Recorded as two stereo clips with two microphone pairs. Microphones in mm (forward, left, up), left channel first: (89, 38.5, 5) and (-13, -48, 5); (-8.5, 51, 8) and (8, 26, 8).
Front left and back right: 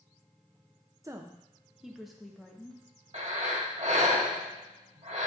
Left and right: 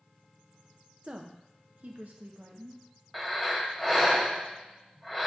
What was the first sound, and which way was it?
A woman speaking, 80° right.